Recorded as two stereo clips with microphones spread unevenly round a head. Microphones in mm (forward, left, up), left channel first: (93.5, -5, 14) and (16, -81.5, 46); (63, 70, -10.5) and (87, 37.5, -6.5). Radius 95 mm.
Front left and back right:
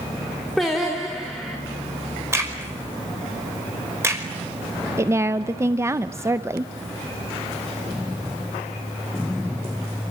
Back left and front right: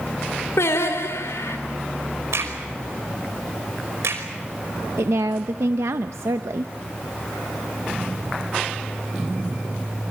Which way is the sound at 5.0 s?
70° right.